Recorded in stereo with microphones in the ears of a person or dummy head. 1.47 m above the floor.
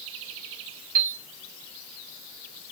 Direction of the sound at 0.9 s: 75° right (ahead or behind).